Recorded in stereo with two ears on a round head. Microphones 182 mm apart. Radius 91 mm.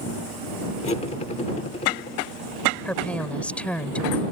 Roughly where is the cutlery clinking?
Left.